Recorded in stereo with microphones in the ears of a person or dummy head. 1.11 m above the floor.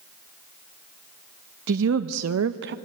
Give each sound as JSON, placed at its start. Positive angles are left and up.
{"t": 1.7, "sound": "a woman speaking", "side_deg": -65, "distance_m": 0.9}